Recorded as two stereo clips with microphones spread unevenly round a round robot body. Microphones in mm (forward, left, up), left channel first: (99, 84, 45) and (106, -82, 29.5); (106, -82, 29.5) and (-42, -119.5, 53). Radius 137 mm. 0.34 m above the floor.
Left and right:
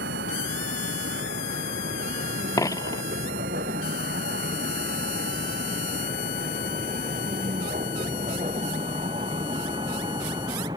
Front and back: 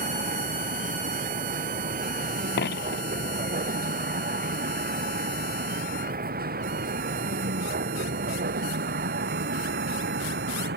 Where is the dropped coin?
25° left.